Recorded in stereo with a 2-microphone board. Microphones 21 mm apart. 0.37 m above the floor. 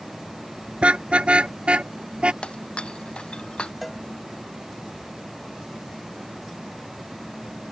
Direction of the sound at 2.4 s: 55° left (ahead or behind).